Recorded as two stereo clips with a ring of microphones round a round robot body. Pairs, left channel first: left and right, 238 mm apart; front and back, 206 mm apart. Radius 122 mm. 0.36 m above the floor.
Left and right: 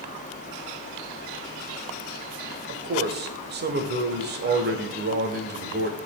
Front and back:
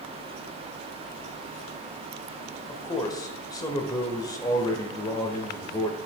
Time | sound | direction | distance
2.7 | a man speaking | 70° right | 1.1 m